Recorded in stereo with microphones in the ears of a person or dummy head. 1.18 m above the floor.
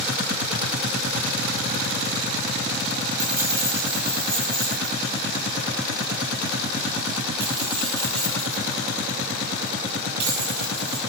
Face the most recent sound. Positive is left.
turn(degrees=-65)  # may be behind; listen again after turning